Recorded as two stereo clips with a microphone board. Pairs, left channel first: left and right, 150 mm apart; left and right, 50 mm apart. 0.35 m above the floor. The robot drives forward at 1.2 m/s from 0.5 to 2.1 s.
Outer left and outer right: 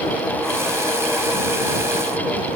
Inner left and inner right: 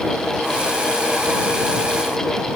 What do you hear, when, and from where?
Only background noise.